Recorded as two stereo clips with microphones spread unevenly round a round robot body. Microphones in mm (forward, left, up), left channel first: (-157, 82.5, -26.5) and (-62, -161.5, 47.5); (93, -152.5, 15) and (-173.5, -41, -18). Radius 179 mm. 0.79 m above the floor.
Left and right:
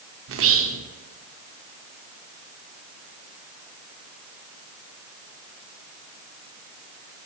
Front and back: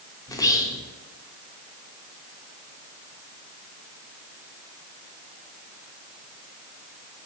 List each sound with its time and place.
0.3 s whispering: 105° right, 0.5 m